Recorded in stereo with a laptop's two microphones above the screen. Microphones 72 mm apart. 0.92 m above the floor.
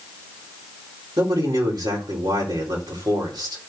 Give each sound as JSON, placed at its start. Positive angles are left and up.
{"t": 1.2, "sound": "a man speaking", "side_deg": -70, "distance_m": 3.5}